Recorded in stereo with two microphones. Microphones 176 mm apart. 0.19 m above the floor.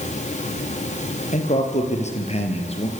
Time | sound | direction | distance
1.3 | a man speaking | 45° left (ahead or behind) | 5.5 m